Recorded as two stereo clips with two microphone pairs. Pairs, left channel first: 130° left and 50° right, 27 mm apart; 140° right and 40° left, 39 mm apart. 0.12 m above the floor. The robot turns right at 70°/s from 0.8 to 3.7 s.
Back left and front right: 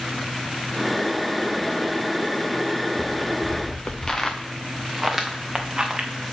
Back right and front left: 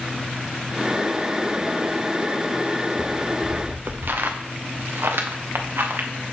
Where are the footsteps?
45° left, 1.7 m; by 6.1 s 10° left, 1.8 m.